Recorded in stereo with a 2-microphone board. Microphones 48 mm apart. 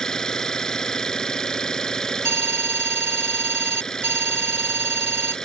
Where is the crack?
No crack in this recording.